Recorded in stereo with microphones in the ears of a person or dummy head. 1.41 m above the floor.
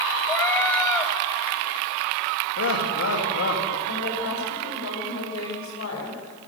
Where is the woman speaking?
90° left, 6.5 m.